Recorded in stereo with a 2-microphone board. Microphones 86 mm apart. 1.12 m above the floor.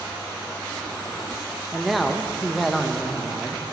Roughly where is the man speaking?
Centre.